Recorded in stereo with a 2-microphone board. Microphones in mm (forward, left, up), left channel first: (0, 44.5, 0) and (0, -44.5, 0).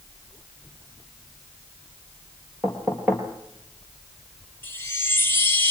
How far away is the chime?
About 1.8 m.